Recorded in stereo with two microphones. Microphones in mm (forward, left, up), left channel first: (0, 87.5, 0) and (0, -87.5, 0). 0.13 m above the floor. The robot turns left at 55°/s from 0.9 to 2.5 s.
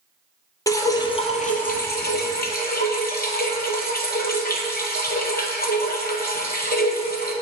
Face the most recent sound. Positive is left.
turn(degrees=70)